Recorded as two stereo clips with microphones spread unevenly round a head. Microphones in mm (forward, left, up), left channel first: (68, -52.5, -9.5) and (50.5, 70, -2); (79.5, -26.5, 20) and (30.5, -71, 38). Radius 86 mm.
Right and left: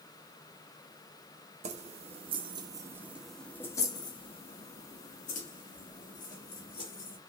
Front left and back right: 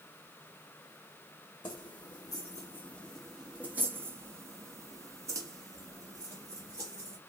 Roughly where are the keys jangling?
Left.